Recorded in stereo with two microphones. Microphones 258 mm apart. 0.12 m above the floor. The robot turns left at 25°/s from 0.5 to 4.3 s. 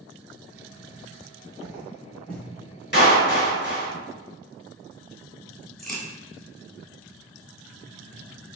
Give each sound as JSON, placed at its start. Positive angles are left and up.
{"t": 1.6, "sound": "footsteps", "side_deg": -15, "distance_m": 1.6}
{"t": 2.9, "sound": "a clap", "side_deg": 45, "distance_m": 1.4}
{"t": 5.8, "sound": "a crack", "side_deg": 0, "distance_m": 1.0}